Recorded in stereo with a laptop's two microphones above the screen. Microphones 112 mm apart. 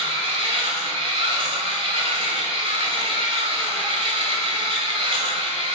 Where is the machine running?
50° right (ahead or behind), 1.7 m.